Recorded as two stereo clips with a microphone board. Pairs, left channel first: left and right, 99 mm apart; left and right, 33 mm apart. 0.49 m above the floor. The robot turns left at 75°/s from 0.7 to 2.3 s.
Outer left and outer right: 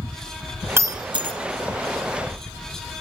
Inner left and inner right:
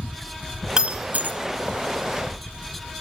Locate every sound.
0.8 s breaking glass: 30° right (ahead or behind), 1.2 m; by 1.4 s 75° right (ahead or behind), 1.2 m